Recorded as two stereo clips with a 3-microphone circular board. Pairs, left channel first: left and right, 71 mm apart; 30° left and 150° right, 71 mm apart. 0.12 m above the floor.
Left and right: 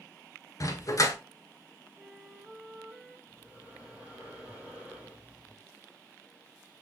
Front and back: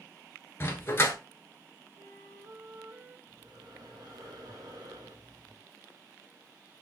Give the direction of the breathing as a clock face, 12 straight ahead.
5 o'clock.